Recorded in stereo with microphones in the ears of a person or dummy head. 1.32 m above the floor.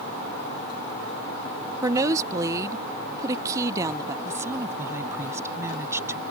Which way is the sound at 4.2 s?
10° right (ahead or behind).